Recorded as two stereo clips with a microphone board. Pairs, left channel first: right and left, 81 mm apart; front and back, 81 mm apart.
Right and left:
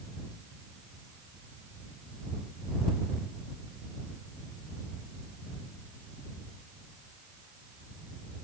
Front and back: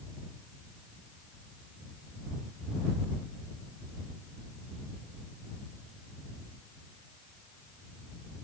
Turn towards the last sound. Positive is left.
No sound to turn to.